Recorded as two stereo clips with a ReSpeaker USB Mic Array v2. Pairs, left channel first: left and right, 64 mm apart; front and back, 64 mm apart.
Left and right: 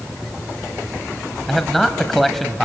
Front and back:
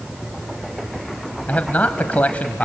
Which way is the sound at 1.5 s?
5° left.